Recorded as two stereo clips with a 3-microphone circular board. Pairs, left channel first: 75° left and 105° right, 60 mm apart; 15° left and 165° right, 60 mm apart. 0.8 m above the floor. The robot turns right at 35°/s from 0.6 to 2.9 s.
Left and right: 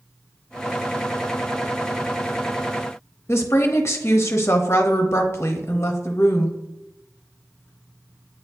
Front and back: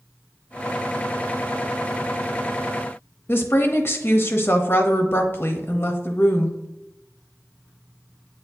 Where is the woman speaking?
50° left, 0.7 m.